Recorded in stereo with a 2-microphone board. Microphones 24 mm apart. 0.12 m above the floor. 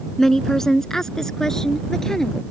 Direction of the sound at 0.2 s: 20° left (ahead or behind).